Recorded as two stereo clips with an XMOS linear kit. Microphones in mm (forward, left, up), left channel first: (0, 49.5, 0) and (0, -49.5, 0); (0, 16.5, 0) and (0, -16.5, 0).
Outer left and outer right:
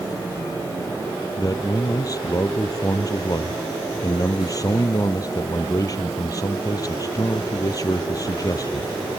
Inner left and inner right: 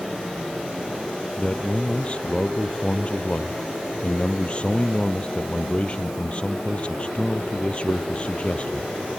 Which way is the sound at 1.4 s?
35° left (ahead or behind).